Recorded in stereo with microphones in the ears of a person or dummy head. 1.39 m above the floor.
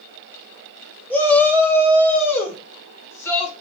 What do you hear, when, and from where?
1.1 s a shout: 10° left (ahead or behind), 2.5 m; by 3.5 s 15° left (ahead or behind), 6 m